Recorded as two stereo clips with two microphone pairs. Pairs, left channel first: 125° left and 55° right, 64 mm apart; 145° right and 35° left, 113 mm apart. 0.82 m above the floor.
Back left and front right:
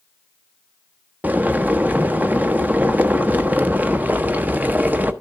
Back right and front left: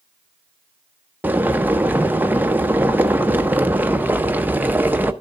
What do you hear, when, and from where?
1.2 s boiling: 25° right, 0.6 m